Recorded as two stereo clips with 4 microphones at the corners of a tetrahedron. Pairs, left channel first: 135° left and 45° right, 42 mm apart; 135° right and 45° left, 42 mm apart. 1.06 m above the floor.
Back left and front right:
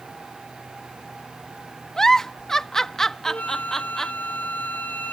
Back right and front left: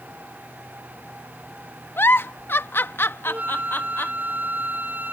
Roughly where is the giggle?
Behind right.